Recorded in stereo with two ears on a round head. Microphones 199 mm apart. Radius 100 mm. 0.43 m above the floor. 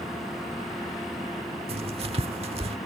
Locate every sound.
1.7 s writing: 25° right (ahead or behind)